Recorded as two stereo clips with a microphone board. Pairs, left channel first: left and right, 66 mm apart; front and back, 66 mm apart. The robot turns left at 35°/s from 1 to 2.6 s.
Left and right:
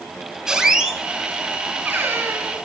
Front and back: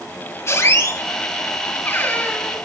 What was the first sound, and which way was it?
A squeak, 15° right.